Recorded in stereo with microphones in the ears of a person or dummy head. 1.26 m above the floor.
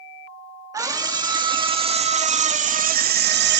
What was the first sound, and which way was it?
A scream, 15° right (ahead or behind).